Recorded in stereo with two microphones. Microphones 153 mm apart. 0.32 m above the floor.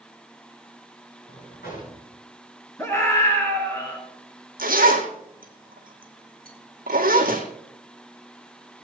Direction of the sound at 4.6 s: 70° right (ahead or behind).